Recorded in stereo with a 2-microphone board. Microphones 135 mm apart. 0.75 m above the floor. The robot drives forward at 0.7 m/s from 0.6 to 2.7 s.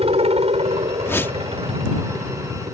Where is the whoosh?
20° left (ahead or behind); by 1.4 s 15° left (ahead or behind).